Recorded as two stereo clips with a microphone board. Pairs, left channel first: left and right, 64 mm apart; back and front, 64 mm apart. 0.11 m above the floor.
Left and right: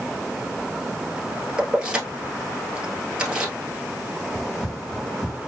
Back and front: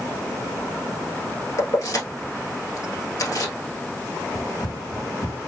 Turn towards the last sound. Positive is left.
turn(degrees=-170)